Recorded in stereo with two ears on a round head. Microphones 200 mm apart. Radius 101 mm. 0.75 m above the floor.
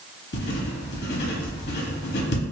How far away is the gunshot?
I don't hear a gunshot.